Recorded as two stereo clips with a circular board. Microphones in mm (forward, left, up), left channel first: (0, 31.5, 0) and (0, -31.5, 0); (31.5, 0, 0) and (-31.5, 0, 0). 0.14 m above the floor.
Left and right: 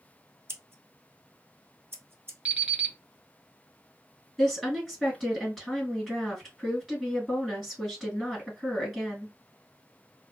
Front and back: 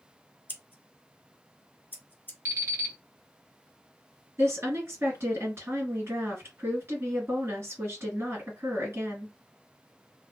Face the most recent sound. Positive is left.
turn(degrees=-175)